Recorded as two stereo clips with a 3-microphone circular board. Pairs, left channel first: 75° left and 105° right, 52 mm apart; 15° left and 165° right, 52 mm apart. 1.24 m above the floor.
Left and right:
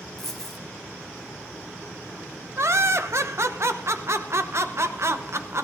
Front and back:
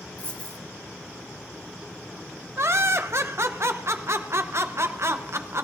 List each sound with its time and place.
0.2 s a dropped coin: straight ahead, 1.1 m
2.6 s laughter: 135° right, 0.9 m